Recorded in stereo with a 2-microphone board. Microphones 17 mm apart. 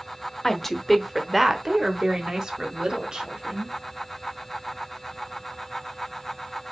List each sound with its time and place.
0.4 s a woman speaking: 20° left (ahead or behind), 0.9 m; by 3.8 s 45° right (ahead or behind), 2 m